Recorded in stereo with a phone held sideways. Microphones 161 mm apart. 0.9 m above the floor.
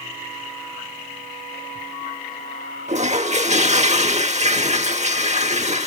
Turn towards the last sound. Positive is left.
turn(degrees=-45)  # may be behind; listen again after turning